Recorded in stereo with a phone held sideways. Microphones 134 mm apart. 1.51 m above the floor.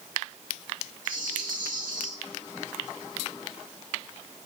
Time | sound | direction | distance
1.1 | a rattle | 80° right | 2.5 m